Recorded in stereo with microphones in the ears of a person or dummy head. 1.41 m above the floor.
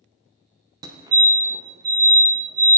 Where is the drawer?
No drawer in this recording.